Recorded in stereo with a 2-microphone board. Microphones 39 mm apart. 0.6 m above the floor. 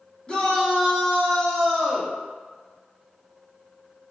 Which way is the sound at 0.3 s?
25° left (ahead or behind).